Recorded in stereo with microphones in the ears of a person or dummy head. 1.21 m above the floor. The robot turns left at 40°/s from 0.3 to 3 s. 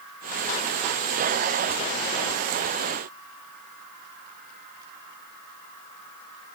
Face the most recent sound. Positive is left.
No sound to turn to.